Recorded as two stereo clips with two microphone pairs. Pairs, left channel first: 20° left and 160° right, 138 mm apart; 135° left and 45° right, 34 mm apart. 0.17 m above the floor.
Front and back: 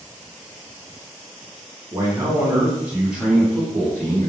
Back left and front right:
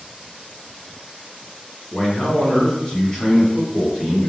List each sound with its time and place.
1.9 s a man speaking: 160° left, 1.7 m; by 4.3 s 15° left, 1.3 m